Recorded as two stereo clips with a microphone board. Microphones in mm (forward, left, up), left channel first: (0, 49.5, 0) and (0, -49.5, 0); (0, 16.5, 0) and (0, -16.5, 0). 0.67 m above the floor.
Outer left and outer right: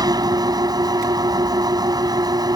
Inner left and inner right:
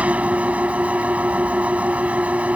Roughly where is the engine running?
Right.